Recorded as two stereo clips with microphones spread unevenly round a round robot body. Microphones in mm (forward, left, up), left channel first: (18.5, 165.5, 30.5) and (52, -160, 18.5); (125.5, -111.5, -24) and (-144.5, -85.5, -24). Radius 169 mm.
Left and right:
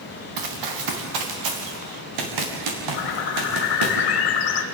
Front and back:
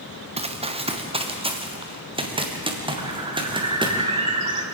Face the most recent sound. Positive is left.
turn(degrees=105)